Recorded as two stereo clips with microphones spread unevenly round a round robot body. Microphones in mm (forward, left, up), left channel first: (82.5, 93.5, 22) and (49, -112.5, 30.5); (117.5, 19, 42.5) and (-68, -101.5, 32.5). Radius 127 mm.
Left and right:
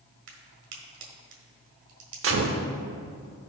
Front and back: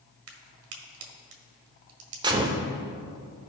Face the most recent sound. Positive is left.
turn(degrees=-75)